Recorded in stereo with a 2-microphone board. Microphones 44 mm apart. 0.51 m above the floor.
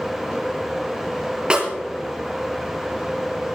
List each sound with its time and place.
1.5 s a snare drum: 20° right (ahead or behind), 3.5 m